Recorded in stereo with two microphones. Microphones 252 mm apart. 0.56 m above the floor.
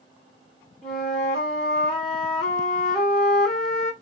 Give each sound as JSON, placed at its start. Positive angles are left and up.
{"t": 0.8, "sound": "a flute", "side_deg": 0, "distance_m": 1.8}